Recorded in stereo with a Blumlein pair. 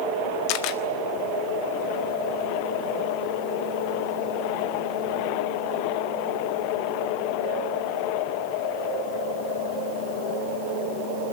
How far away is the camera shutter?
About 1.3 m.